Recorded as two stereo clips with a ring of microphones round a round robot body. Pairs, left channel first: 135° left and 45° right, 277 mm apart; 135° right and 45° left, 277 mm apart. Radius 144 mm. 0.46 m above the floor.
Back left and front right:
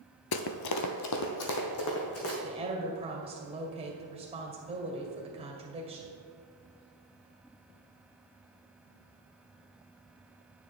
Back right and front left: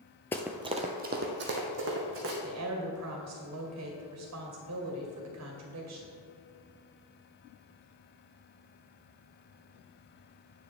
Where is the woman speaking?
25° left, 2 m.